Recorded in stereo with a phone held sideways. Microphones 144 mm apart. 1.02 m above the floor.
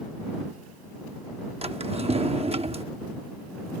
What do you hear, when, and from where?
1.6 s a drawer: 45° right (ahead or behind)